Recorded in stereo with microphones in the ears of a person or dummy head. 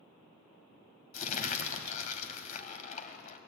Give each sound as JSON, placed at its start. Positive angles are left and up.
{"t": 1.1, "sound": "crumpling", "side_deg": 45, "distance_m": 1.9}